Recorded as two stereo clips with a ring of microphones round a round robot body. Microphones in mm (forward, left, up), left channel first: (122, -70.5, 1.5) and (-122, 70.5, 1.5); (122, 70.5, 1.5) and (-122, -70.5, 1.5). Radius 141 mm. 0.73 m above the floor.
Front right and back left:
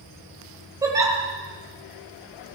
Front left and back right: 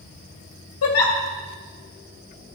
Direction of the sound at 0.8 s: 70° left.